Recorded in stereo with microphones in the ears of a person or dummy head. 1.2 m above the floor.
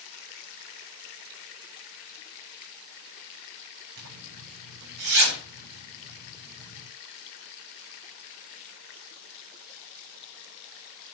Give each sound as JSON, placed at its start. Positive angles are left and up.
{"t": 4.0, "sound": "a zipper", "side_deg": -80, "distance_m": 6.5}